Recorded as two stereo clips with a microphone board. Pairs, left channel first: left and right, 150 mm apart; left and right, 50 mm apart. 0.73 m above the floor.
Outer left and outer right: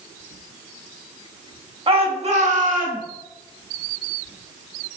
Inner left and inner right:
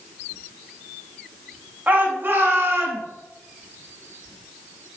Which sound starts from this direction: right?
A shout, at 1.9 s.